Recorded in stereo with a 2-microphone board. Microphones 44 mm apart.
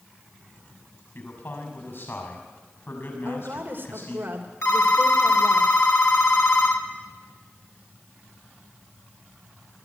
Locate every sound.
1.1 s a man speaking: 55° left (ahead or behind), 6.5 m
3.2 s a woman speaking: 45° right (ahead or behind), 3 m
4.6 s a phone ringing: 65° left (ahead or behind), 1.9 m